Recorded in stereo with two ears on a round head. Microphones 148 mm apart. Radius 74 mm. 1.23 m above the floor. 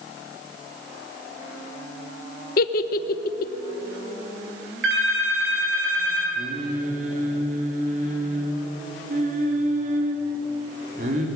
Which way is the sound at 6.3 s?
50° right (ahead or behind).